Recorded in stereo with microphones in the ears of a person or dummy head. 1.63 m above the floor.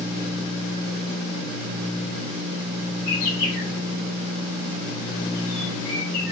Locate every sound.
3.1 s a bird: 70° left (ahead or behind), 1.9 m